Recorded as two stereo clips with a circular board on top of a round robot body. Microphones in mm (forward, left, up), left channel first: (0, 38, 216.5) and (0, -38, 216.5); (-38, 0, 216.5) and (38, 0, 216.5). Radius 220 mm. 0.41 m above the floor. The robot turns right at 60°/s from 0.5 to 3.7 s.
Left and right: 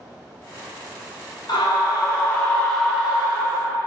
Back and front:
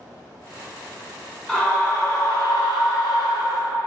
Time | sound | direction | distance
1.5 | a scream | 100° left | 2 m